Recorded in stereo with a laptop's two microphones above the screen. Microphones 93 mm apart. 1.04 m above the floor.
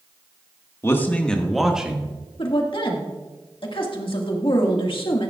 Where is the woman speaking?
65° left (ahead or behind), 1.8 m.